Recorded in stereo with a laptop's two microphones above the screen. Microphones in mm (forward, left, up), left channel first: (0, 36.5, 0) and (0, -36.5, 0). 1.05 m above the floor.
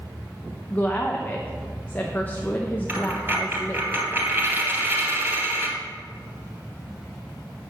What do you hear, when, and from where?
0.7 s a woman speaking: 25° left (ahead or behind), 0.7 m
2.9 s a dropped coin: 25° right (ahead or behind), 2.5 m